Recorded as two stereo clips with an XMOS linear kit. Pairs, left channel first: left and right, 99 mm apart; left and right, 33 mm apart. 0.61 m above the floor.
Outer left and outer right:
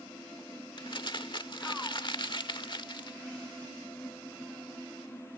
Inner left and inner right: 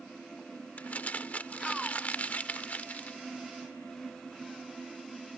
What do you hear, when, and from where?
0.8 s crumpling: 55° left (ahead or behind)